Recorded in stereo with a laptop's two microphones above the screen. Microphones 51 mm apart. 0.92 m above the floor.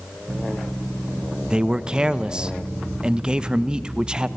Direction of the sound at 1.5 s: 15° right (ahead or behind).